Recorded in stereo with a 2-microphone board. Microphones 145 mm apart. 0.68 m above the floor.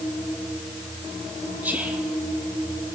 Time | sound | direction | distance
1.6 | whispering | 10° right (ahead or behind) | 1.0 m